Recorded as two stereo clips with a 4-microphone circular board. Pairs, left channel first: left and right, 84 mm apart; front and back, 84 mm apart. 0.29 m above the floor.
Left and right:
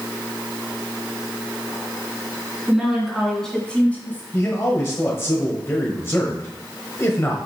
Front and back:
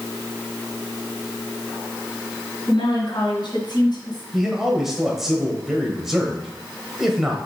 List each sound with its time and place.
2.7 s a woman speaking: 5° right, 2.5 m; by 4.2 s 25° left, 1.8 m
4.3 s a man speaking: 100° left, 1.1 m